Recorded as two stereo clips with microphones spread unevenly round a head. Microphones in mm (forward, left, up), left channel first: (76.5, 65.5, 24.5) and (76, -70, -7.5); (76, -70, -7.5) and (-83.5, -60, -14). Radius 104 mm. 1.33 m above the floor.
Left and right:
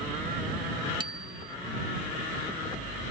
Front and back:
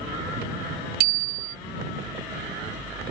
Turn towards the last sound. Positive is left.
turn(degrees=-160)